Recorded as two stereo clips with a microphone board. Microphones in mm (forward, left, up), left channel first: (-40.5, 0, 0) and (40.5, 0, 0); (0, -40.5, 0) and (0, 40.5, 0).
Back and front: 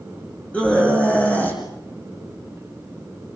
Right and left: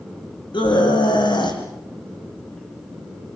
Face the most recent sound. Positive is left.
turn(degrees=-110)